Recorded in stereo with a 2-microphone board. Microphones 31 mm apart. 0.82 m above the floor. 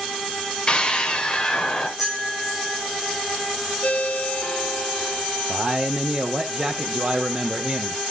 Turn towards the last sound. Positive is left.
turn(degrees=-30)  # may be behind; listen again after turning